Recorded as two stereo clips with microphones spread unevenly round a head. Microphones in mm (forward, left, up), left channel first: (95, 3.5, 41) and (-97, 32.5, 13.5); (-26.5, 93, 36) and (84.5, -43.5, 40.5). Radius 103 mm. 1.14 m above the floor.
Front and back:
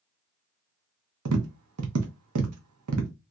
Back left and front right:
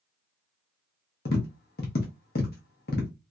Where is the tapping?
170° left, 0.7 m.